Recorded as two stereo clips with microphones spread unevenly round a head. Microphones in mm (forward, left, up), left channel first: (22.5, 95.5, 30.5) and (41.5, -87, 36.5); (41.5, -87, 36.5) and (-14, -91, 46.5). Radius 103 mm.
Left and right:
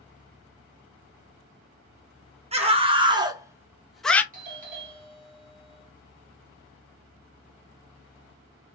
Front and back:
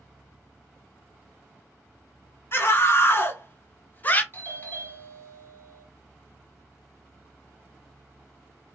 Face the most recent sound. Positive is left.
turn(degrees=-40)